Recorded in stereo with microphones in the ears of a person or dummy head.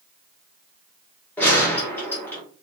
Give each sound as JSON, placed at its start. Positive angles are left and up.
{"t": 1.4, "sound": "a gunshot", "side_deg": 10, "distance_m": 1.3}